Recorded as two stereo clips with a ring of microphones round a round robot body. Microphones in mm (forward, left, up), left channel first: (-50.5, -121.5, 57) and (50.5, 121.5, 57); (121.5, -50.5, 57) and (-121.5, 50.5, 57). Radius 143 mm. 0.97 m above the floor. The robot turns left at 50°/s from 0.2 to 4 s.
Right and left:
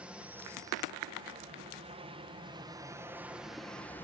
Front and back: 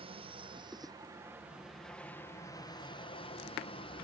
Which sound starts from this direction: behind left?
An aircraft, at 0.0 s.